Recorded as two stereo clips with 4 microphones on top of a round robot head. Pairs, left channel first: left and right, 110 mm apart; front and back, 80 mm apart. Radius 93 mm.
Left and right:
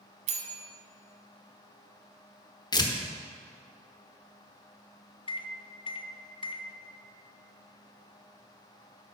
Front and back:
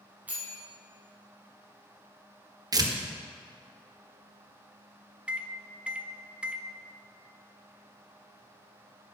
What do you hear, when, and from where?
0.3 s a bell: 100° right, 1.0 m
2.7 s tearing paper: 140° left, 1.0 m
5.3 s a microwave: 105° left, 0.7 m